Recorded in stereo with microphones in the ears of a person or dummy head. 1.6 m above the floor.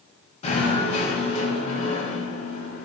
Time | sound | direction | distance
0.4 | knocking | 45° left (ahead or behind) | 2 m